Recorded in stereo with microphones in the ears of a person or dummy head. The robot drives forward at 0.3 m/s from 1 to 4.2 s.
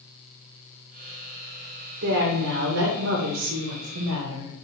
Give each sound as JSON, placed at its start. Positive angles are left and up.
{"t": 2.0, "sound": "a woman speaking", "side_deg": -65, "distance_m": 0.8}